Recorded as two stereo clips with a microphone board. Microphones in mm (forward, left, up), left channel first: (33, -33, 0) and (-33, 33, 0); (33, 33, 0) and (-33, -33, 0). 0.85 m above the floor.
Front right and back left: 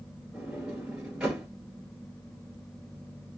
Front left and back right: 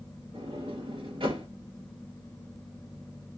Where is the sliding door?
145° right, 2 m.